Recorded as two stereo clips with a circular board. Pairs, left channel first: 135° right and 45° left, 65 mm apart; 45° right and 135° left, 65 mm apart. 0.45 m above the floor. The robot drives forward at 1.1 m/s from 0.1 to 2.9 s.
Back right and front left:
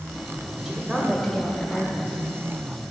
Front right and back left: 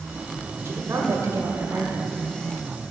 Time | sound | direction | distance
0.7 | a woman speaking | 120° left | 1.9 m